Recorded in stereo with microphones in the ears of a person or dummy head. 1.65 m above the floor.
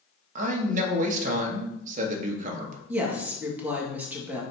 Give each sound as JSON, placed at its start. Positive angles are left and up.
{"t": 0.3, "sound": "a man speaking", "side_deg": -45, "distance_m": 1.5}
{"t": 2.9, "sound": "a woman speaking", "side_deg": -10, "distance_m": 2.0}